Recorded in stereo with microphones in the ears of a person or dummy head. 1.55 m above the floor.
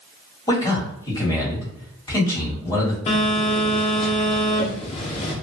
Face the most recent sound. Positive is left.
turn(degrees=35)  # may be behind; listen again after turning